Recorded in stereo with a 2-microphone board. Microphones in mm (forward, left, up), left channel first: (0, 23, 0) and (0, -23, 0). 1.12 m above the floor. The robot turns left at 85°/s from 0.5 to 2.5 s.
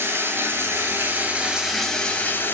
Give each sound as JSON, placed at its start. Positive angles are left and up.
{"t": 0.0, "sound": "running water", "azimuth_deg": -70, "distance_m": 1.8}